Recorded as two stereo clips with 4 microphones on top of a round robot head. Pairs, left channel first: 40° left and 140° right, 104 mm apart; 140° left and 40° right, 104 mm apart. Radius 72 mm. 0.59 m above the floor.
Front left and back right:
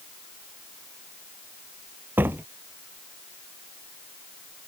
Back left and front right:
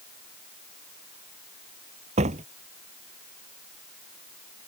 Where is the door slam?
65° right.